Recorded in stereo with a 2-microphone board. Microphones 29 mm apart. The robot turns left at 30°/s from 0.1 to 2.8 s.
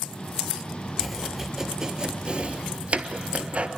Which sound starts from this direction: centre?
Chopping, at 1.0 s.